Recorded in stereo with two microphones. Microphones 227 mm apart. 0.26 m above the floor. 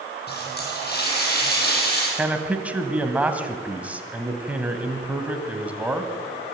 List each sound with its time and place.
0.3 s a running tap: 45° left (ahead or behind), 6 m
2.2 s a man speaking: 5° right (ahead or behind), 1.7 m